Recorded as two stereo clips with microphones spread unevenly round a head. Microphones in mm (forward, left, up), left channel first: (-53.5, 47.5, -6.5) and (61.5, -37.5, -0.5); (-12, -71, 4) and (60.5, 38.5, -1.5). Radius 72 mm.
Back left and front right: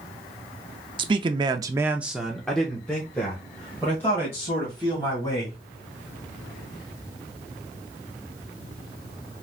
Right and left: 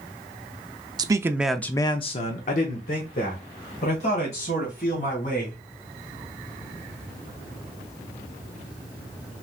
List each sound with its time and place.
1.0 s a man speaking: 10° left, 0.7 m; by 5.6 s 145° right, 3 m